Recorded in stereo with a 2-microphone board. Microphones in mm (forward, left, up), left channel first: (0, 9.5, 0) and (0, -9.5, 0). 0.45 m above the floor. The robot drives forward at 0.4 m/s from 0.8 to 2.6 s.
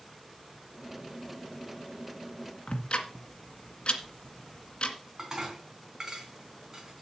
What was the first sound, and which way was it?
Ticking, 60° left (ahead or behind).